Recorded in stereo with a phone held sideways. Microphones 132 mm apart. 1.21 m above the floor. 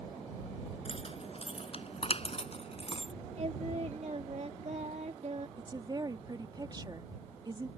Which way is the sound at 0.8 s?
50° left (ahead or behind).